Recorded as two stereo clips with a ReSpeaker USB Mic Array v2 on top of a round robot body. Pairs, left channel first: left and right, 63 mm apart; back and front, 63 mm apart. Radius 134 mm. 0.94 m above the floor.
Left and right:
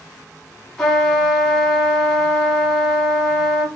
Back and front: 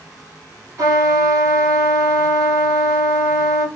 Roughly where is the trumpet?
Ahead.